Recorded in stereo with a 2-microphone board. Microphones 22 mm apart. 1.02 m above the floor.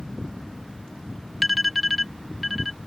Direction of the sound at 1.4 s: Centre (ahead or behind).